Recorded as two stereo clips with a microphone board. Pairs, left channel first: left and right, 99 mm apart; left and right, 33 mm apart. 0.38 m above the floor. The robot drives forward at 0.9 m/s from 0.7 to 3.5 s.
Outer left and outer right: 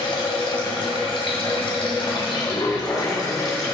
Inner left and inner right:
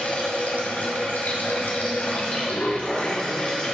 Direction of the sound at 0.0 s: 60° left (ahead or behind).